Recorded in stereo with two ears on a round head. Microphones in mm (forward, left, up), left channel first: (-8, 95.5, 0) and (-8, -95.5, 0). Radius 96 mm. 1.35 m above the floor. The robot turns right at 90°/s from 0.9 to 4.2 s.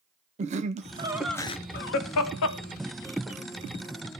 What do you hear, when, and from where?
0.4 s laughter: 30° right (ahead or behind), 0.6 m; by 3.4 s 10° right (ahead or behind), 0.6 m